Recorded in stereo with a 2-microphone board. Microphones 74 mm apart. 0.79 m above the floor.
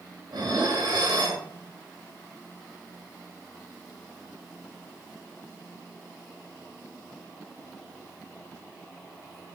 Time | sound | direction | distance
0.3 | dishes clattering | 80° right | 2.5 m